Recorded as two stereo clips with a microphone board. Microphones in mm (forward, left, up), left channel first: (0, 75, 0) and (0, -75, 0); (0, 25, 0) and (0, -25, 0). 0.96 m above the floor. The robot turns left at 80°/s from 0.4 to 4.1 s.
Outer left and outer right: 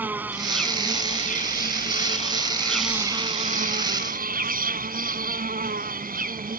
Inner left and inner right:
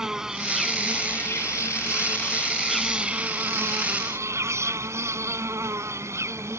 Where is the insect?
170° right; by 6.6 s 105° right.